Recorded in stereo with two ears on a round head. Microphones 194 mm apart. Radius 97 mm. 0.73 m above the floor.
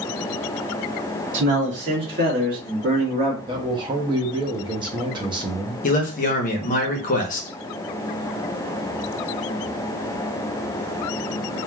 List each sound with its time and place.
1.3 s a man speaking: 60° right (ahead or behind), 1.8 m; by 3.4 s 25° right (ahead or behind), 1.2 m
3.5 s a man speaking: 20° right (ahead or behind), 0.6 m
5.8 s a man speaking: 40° left (ahead or behind), 0.8 m